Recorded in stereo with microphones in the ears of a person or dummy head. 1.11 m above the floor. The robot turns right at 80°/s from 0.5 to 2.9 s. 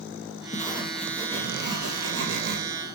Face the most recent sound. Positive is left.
turn(degrees=-20)